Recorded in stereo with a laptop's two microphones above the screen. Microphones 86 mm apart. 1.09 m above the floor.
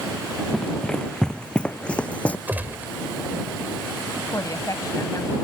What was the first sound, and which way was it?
Running footsteps, 5° left (ahead or behind).